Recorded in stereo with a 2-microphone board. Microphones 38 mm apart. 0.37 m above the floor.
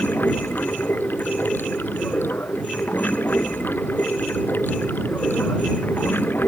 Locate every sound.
0.0 s running water: 60° left (ahead or behind)